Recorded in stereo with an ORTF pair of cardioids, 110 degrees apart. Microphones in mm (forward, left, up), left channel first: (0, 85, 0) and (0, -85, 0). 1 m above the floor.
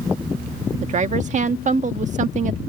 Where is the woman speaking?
45° right.